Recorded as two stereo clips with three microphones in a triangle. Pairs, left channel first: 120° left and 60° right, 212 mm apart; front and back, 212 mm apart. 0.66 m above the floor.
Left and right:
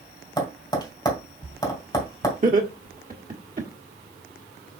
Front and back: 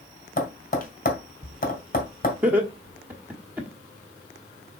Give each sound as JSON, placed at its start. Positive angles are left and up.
{"t": 0.4, "sound": "tapping", "azimuth_deg": 50, "distance_m": 2.0}
{"t": 2.4, "sound": "laughter", "azimuth_deg": -100, "distance_m": 1.2}